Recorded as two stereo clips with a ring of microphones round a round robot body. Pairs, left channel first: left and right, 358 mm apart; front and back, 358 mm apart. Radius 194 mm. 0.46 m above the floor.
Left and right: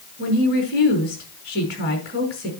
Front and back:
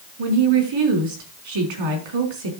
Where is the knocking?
I don't hear knocking.